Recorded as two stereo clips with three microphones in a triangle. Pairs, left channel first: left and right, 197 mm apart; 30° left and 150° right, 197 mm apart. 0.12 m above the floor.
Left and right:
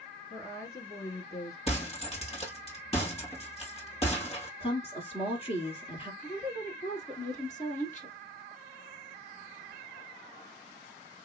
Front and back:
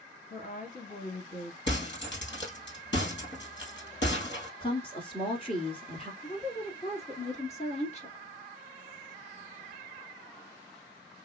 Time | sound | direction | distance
0.3 | a woman speaking | 25° left | 1.7 m
1.7 | breaking glass | 35° left | 1.8 m
4.6 | a woman speaking | 65° left | 1.5 m
6.2 | a woman speaking | 65° left | 1.5 m